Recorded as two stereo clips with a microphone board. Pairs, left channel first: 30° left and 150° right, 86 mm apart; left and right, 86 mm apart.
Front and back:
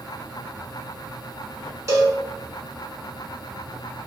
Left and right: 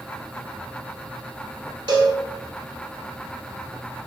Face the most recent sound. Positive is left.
turn(degrees=-105)